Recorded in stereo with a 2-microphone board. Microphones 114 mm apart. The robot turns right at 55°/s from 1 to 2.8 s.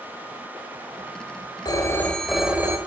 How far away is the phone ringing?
About 1.5 m.